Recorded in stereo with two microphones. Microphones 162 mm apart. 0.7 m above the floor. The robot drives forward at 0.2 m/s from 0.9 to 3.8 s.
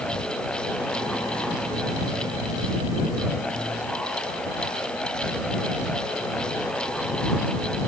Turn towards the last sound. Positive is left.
No sound to turn to.